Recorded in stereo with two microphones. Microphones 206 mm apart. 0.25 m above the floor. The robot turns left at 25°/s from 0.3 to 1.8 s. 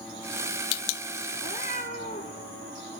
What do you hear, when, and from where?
1.4 s a cat meowing: 35° left (ahead or behind), 3.5 m; by 2.4 s 45° left (ahead or behind), 3.5 m